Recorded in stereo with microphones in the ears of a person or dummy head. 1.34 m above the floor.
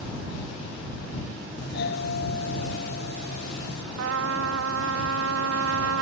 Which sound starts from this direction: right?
A trumpet, at 4.0 s.